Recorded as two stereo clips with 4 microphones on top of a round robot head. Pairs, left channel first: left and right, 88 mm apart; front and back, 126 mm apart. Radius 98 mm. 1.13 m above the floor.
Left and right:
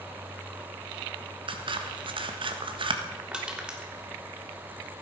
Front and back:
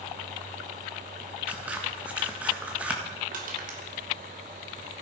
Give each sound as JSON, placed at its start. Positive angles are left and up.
{"t": 1.5, "sound": "scissors", "azimuth_deg": -100, "distance_m": 1.6}
{"t": 3.3, "sound": "crushing", "azimuth_deg": -170, "distance_m": 3.5}